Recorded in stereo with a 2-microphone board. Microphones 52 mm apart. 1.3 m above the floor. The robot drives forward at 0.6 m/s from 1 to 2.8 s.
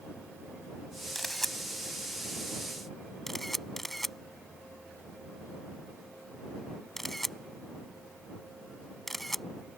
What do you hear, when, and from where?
1.1 s a camera shutter: 5° left (ahead or behind)